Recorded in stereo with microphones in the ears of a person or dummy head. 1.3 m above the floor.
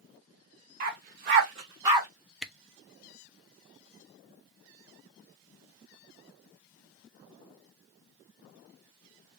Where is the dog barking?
45° right (ahead or behind), 1.2 m; by 2.1 s 10° right (ahead or behind), 1.2 m.